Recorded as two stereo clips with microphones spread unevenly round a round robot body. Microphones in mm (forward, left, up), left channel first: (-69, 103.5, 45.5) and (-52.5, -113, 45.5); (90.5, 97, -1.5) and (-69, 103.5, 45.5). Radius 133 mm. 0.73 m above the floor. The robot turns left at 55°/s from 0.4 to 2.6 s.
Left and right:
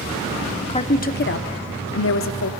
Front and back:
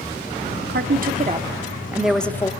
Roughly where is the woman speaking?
Behind.